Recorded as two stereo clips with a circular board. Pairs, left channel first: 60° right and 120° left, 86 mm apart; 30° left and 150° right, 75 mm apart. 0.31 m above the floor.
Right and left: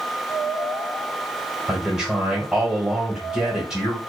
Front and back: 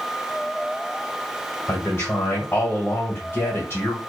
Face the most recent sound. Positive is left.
turn(degrees=40)